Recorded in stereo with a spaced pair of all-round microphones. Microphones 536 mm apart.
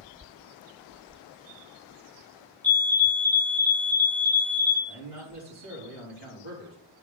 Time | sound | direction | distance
2.6 | a fire alarm | 5° left (ahead or behind) | 0.9 m
4.9 | a man speaking | 60° left (ahead or behind) | 3.5 m